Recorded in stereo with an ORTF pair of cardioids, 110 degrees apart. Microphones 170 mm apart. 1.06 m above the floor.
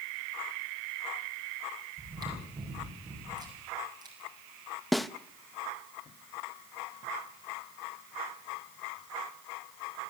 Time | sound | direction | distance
2.0 | chewing | 25° right | 7 m
4.9 | a snare drum | straight ahead | 0.8 m